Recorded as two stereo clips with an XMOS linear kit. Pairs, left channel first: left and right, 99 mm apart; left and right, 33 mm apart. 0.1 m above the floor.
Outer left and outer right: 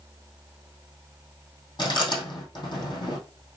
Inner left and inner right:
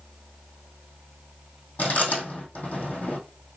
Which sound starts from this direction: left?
Chewing, at 1.8 s.